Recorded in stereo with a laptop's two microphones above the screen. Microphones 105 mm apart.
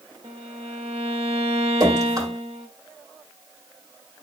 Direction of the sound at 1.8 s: 35° right (ahead or behind).